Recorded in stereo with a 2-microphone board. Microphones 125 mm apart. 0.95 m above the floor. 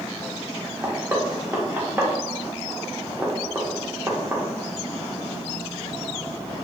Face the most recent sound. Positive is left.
turn(degrees=-20)  # may be behind; listen again after turning